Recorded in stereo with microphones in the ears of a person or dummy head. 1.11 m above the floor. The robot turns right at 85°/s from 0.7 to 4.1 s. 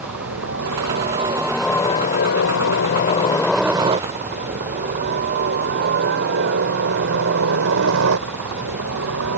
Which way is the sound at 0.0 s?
75° right (ahead or behind).